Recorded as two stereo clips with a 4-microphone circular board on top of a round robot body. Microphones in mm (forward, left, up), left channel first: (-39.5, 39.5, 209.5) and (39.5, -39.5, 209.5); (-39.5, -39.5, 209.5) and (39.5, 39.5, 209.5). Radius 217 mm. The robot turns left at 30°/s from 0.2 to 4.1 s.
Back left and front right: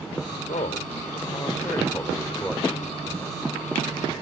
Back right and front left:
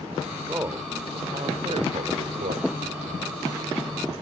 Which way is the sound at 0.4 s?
115° left.